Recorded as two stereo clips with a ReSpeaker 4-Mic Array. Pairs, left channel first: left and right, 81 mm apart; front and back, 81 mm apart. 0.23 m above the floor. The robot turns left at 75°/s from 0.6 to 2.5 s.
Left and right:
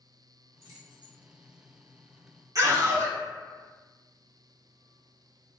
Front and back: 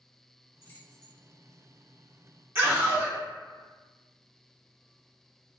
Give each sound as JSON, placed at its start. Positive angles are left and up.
{"t": 0.6, "sound": "keys jangling", "azimuth_deg": -50, "distance_m": 1.1}
{"t": 2.5, "sound": "a scream", "azimuth_deg": -125, "distance_m": 1.9}